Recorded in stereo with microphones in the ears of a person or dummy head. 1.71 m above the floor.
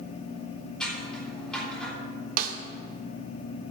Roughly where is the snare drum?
Right.